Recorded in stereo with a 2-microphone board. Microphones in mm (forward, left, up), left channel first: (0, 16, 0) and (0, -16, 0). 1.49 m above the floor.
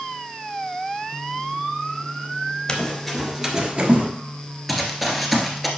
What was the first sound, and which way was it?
Running footsteps, 20° left (ahead or behind).